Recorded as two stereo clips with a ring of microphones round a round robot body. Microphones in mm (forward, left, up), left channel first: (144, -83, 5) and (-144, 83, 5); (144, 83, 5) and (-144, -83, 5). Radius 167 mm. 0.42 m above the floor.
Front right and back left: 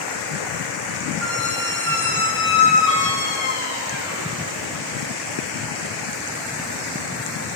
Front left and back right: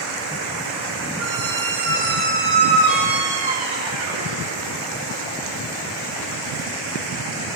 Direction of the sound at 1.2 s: 150° right.